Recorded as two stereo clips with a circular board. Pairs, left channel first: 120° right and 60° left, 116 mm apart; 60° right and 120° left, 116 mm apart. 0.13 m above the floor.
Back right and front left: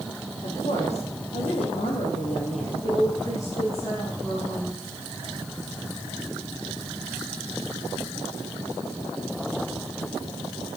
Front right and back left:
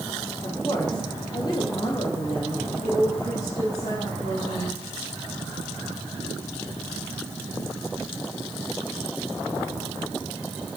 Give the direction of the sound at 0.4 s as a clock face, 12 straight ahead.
4 o'clock.